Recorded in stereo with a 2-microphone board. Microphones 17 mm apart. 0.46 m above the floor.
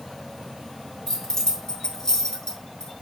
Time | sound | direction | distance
1.1 | keys jangling | 30° left (ahead or behind) | 4 m